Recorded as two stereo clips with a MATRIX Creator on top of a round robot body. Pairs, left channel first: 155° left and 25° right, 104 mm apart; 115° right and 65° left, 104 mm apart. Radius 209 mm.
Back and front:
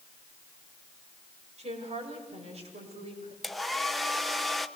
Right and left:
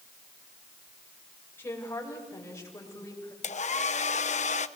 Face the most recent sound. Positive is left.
turn(degrees=-115)